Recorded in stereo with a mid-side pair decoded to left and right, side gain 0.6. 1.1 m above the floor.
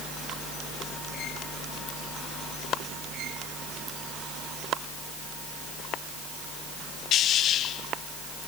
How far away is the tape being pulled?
I don't hear tape being pulled.